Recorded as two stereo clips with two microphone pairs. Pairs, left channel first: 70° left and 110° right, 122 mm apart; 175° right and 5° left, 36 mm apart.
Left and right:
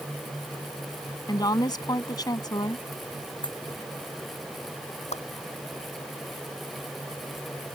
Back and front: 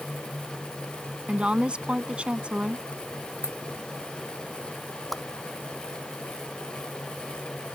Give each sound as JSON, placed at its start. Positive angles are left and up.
{"t": 1.3, "sound": "a woman speaking", "azimuth_deg": 45}
{"t": 3.4, "sound": "a dropped coin", "azimuth_deg": 25}
{"t": 5.1, "sound": "a whoosh", "azimuth_deg": 100}